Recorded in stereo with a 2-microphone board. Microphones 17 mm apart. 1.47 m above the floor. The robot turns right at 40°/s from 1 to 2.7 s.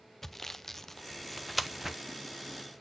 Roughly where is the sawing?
Centre.